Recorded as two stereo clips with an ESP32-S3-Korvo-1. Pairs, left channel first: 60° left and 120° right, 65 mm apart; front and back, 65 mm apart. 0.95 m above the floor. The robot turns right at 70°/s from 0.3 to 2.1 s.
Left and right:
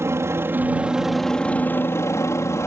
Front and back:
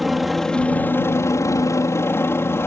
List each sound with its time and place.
0.0 s a helicopter: 90° right; by 2.7 s 35° left